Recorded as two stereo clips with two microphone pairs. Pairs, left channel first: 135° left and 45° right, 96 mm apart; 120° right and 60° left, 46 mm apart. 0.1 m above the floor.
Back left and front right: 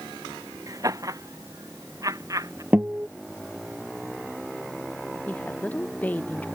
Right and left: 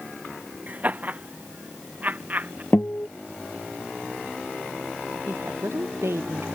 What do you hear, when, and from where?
0.7 s laughter: 10° left
2.7 s a guitar: 115° right
5.3 s a woman speaking: 65° left